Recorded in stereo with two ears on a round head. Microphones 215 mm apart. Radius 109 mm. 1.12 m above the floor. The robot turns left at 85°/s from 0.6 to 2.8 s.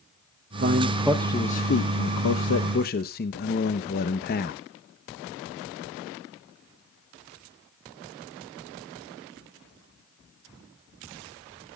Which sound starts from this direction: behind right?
A man speaking, at 0.6 s.